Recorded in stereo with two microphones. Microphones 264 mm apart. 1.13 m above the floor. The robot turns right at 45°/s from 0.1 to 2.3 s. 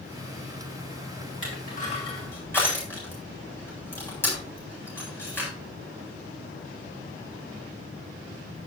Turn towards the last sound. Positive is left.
turn(degrees=10)  # may be behind; listen again after turning